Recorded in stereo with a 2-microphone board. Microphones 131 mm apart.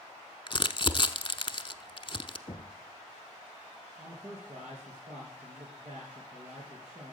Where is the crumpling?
40° left (ahead or behind), 0.8 m.